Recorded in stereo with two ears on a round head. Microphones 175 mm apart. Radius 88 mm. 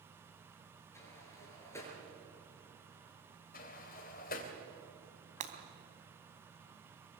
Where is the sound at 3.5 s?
45° left (ahead or behind), 2.5 m.